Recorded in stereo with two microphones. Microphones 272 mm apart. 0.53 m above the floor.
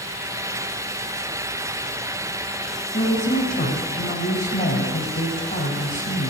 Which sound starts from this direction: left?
A woman speaking, at 2.9 s.